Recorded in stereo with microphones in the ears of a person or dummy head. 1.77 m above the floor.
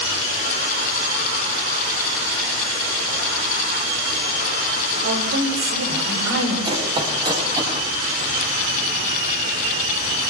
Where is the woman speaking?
70° right (ahead or behind), 5.5 m; by 6.5 s 60° right (ahead or behind), 6 m.